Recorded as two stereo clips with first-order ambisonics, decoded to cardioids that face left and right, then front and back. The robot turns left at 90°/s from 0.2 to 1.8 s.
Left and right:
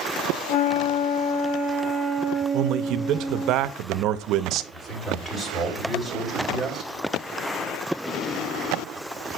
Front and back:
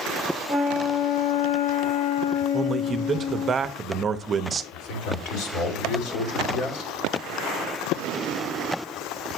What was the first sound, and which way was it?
A flute, 100° left.